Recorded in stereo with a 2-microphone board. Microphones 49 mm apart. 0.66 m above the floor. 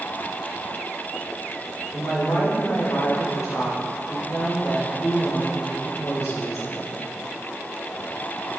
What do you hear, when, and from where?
1.9 s a woman speaking: 75° left (ahead or behind), 2 m